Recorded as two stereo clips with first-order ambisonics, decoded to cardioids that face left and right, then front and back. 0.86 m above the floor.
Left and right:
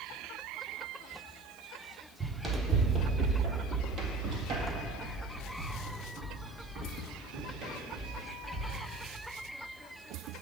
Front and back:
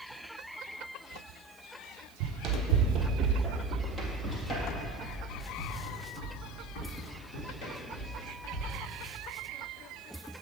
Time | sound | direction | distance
2.2 | running footsteps | 165° right | 1.3 m